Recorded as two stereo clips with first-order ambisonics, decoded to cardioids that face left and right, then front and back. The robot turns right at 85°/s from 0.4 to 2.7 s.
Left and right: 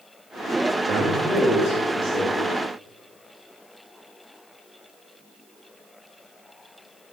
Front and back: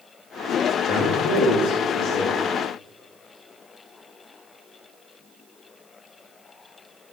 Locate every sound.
0.9 s a man speaking: 45° right, 1.1 m; by 2.4 s 80° left, 1.1 m